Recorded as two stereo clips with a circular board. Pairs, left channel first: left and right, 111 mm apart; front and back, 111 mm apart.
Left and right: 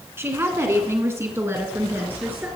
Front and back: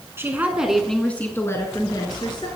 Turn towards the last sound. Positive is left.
turn(degrees=-25)